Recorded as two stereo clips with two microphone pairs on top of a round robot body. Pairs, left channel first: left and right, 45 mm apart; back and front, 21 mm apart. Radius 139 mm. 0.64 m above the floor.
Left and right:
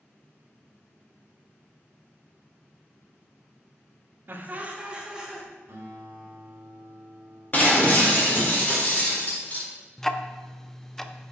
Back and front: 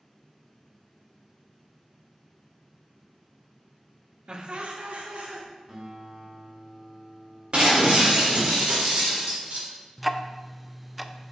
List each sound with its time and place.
4.3 s laughter: 50° right, 1.0 m; by 5.5 s 10° right, 1.7 m
5.7 s a guitar: 55° right, 1.8 m
7.5 s breaking glass: 35° left, 1.7 m
10.0 s ticking: 115° left, 0.6 m